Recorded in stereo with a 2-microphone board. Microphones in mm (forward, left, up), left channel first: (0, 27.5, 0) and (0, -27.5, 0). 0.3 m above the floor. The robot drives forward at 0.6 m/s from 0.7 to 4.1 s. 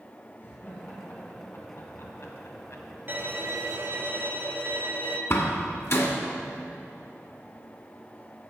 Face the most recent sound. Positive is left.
turn(degrees=50)  # may be behind; listen again after turning